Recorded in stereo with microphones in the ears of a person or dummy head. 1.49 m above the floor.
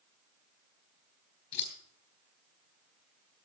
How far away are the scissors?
About 3.5 m.